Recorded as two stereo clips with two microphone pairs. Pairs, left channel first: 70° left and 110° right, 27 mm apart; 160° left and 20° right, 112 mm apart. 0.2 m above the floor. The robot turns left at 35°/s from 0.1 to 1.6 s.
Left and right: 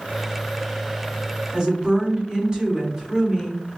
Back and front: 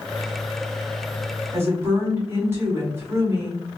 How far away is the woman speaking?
About 1.5 m.